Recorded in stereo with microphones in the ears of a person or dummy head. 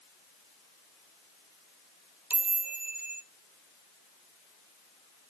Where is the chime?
15° right (ahead or behind), 0.8 m.